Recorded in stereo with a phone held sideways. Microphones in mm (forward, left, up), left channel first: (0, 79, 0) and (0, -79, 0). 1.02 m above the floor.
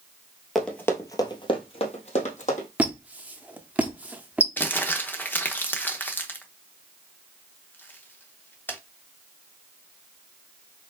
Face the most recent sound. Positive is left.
turn(degrees=10)  # may be behind; listen again after turning